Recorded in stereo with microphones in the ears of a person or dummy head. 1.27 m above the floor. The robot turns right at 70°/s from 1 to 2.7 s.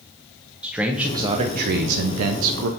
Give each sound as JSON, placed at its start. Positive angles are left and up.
{"t": 0.6, "sound": "a man speaking", "azimuth_deg": -175, "distance_m": 0.5}